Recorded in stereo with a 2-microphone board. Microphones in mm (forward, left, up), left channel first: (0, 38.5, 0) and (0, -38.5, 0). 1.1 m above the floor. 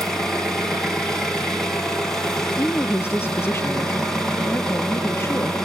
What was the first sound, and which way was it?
An engine running, 10° left (ahead or behind).